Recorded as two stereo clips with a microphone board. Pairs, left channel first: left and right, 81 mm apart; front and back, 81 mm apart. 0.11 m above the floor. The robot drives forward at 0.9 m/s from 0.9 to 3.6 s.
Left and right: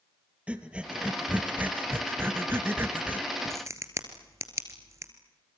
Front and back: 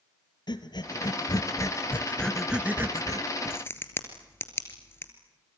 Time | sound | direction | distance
0.5 | breathing | 15° right | 1.6 m
3.5 | a crack | 50° right | 2.5 m